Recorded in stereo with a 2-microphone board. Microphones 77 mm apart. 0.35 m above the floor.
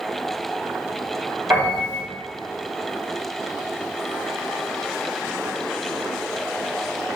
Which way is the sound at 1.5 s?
25° right (ahead or behind).